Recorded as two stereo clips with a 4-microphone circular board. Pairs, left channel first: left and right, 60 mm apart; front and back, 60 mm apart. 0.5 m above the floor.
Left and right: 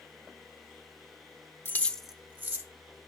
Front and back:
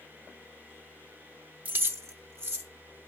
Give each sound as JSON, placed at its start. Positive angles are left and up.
{"t": 1.6, "sound": "keys jangling", "azimuth_deg": 120, "distance_m": 0.8}